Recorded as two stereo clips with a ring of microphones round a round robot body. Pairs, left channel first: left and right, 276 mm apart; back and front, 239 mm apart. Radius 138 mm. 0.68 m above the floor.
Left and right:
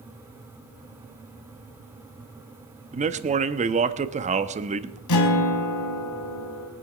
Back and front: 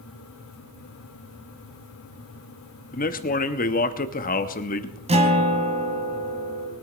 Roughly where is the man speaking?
Behind right.